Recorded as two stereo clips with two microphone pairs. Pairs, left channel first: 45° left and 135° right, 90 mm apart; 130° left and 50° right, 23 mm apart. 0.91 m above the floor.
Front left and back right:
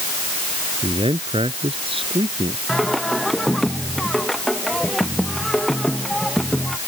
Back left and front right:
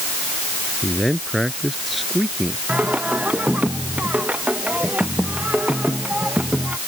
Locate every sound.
0.8 s a man speaking: 135° right
2.7 s singing: 45° right